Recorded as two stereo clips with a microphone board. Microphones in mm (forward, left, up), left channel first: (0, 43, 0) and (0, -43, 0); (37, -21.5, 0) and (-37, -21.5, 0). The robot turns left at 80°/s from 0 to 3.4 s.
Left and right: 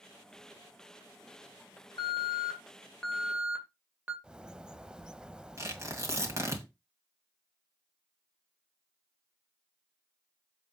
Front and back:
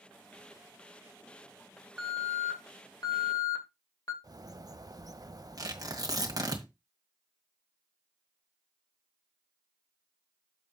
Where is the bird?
170° right, 0.5 m.